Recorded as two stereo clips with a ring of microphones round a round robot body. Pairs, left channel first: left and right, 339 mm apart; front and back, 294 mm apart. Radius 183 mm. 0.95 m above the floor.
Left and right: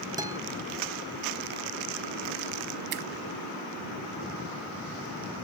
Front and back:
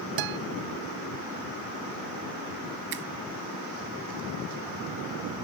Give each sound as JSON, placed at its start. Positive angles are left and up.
{"t": 0.2, "sound": "a guitar", "azimuth_deg": -170}
{"t": 2.9, "sound": "a finger snap", "azimuth_deg": -120}